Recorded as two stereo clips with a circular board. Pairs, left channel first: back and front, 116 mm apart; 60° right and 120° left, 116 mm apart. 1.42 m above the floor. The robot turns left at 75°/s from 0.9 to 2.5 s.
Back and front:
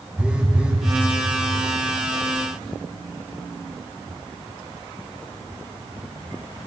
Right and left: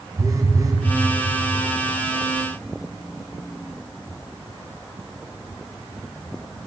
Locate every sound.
0.2 s a phone buzzing: 75° left, 0.6 m